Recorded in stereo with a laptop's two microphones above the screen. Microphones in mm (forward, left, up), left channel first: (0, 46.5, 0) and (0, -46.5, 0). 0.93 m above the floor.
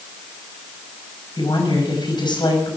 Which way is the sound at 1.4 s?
55° left (ahead or behind).